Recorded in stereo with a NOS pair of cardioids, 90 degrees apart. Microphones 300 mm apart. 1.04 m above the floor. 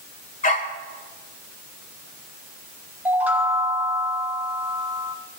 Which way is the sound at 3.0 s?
5° right.